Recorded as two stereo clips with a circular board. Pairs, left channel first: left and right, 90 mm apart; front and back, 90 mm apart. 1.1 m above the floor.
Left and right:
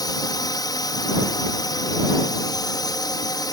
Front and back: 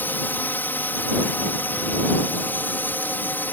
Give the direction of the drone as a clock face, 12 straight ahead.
10 o'clock.